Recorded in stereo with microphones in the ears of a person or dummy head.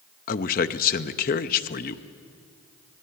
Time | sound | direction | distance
0.3 | a man speaking | 35° left (ahead or behind) | 0.7 m